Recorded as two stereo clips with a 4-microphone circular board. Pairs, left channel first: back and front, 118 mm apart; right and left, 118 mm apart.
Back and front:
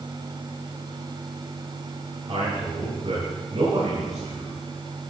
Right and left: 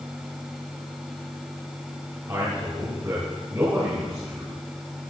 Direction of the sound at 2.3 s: 25° left.